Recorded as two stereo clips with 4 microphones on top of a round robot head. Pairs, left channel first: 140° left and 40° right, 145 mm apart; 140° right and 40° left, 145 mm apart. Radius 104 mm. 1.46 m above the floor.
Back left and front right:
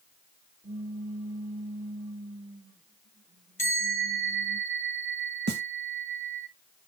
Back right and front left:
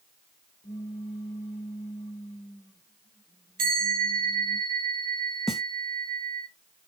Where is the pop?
95° right, 1.9 m.